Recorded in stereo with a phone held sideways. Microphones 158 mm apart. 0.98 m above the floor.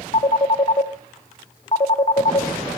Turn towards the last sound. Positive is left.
turn(degrees=45)  # may be behind; listen again after turning